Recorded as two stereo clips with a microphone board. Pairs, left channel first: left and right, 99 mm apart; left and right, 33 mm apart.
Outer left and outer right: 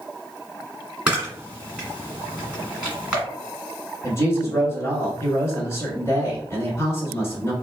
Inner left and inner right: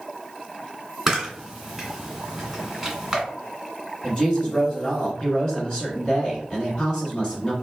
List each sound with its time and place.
1.1 s a camera shutter: 10° right (ahead or behind), 1.6 m
4.0 s a woman speaking: 30° left (ahead or behind), 1.4 m